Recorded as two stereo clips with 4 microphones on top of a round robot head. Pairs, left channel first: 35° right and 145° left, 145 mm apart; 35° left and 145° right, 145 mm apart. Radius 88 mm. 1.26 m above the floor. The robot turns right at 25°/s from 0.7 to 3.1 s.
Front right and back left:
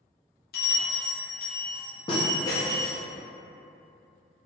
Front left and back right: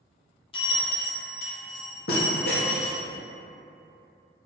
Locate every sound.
0.5 s a bell: 20° right, 0.7 m; by 3.0 s 40° left, 0.7 m